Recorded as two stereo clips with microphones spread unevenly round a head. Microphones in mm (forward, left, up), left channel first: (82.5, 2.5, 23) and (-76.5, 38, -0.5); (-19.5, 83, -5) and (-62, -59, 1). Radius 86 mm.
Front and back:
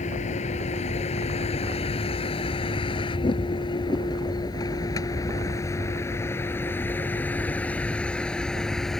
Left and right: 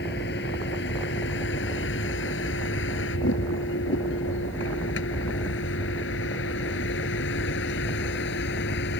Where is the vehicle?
35° left; by 9.0 s 75° left.